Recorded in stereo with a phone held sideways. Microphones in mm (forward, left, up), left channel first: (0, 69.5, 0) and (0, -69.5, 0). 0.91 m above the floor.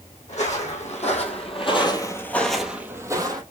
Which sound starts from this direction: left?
Footsteps, at 0.3 s.